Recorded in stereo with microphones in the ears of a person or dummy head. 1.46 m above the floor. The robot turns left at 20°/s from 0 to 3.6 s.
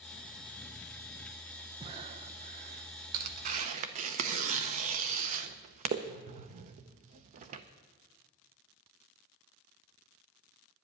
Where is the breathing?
30° right (ahead or behind), 0.8 m; by 2.9 s 50° right (ahead or behind), 0.8 m.